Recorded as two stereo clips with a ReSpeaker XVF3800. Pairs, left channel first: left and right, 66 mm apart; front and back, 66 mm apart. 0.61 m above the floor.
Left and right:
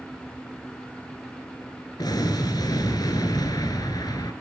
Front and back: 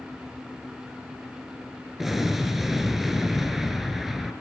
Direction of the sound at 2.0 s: 95° left.